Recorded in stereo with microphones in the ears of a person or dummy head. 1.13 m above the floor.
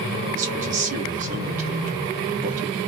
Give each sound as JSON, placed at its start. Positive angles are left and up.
{"t": 0.3, "sound": "a man speaking", "side_deg": -40, "distance_m": 1.0}